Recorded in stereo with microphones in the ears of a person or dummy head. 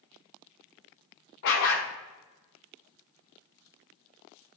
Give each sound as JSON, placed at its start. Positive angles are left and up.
{"t": 1.4, "sound": "a dog barking", "side_deg": 60, "distance_m": 1.4}